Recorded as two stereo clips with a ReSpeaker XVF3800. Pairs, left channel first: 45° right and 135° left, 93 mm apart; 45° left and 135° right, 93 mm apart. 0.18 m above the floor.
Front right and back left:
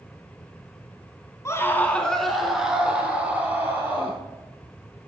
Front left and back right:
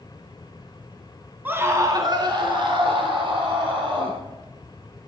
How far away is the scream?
About 1.2 m.